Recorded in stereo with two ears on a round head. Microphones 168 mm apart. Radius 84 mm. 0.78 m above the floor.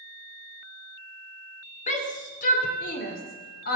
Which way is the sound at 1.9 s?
40° left (ahead or behind).